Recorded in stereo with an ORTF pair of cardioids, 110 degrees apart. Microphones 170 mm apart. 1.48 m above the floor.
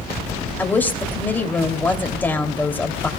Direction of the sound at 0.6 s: 10° left.